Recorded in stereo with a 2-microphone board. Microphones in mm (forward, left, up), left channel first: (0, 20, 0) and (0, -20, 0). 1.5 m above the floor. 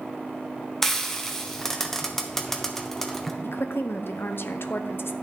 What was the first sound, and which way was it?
Frying, 10° left (ahead or behind).